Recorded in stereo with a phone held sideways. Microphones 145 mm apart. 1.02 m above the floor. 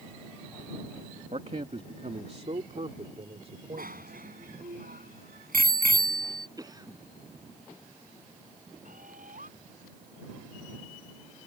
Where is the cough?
25° right (ahead or behind).